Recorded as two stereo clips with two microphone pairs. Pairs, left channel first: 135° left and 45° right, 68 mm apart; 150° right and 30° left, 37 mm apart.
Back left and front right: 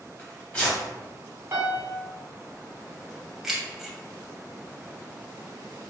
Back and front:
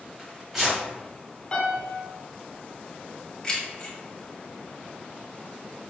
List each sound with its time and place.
0.2 s tearing paper: 100° left, 1.1 m
1.5 s a piano: 95° right, 1.3 m
3.4 s keys jangling: 135° right, 0.7 m